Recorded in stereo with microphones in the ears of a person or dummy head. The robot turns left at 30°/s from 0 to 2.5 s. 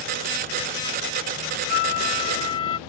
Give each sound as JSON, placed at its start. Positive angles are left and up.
{"t": 1.7, "sound": "a flute", "side_deg": 55}